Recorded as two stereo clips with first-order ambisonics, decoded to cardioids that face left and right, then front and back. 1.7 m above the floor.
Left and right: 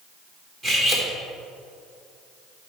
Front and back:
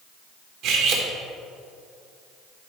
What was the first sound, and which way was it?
Cutlery clinking, 160° right.